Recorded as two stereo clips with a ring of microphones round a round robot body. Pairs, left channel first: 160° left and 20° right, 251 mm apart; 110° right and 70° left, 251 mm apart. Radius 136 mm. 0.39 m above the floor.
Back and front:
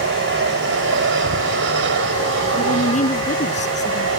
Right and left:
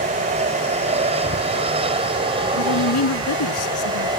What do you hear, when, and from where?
0.0 s an aircraft: 10° left; by 4.2 s straight ahead
2.5 s a woman speaking: 140° right